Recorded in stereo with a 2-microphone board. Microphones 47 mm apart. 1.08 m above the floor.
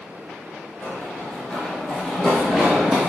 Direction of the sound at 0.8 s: 40° left (ahead or behind).